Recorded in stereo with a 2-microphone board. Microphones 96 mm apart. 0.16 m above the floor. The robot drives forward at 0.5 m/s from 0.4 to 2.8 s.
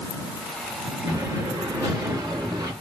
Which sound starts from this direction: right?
An explosion, at 1.1 s.